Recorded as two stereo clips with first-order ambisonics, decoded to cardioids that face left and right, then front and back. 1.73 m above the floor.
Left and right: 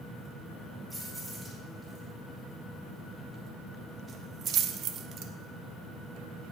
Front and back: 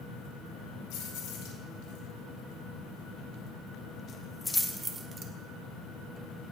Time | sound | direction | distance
0.9 | keys jangling | 5° left | 3.5 m